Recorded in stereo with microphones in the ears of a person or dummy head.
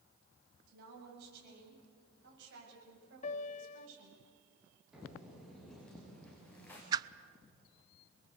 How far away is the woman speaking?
About 8.5 m.